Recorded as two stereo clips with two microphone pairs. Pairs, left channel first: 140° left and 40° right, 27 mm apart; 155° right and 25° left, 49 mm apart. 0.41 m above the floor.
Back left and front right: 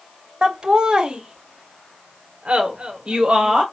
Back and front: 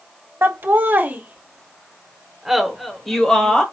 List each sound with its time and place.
0.4 s laughter: 5° left, 1.4 m; by 3.6 s 85° right, 1.4 m